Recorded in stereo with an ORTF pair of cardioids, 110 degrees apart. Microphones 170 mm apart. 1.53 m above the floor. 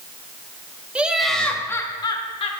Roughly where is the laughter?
Ahead.